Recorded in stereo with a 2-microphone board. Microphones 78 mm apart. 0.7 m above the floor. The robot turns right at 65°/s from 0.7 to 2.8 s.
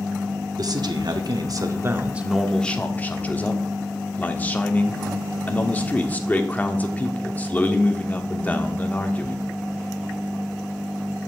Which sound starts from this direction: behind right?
A man speaking, at 0.6 s.